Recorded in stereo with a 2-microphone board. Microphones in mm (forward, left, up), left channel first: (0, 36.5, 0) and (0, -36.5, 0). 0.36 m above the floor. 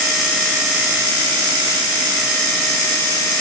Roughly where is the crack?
I don't hear a crack.